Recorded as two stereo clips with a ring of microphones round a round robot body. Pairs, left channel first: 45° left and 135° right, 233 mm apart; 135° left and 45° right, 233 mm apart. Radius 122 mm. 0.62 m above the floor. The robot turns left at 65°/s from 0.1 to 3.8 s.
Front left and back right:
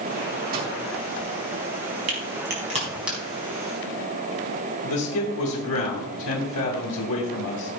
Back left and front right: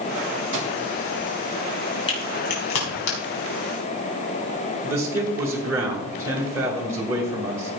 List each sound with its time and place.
0.5 s a microwave: 80° right, 4 m; by 0.8 s 95° right, 4 m
2.1 s a crack: 155° right, 5 m; by 3.2 s 135° left, 5 m
4.8 s a man speaking: 35° left, 2 m